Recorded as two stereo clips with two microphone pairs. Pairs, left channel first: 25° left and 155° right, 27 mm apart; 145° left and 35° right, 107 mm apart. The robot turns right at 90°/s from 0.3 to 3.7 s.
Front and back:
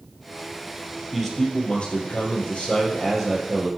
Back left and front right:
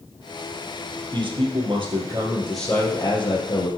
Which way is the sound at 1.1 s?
75° right.